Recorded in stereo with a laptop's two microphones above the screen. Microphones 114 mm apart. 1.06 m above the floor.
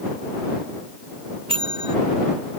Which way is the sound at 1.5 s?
55° right (ahead or behind).